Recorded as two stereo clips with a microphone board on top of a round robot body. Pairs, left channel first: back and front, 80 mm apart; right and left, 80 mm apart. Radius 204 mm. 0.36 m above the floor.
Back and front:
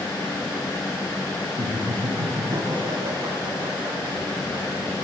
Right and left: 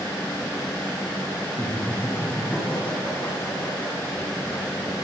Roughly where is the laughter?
Ahead.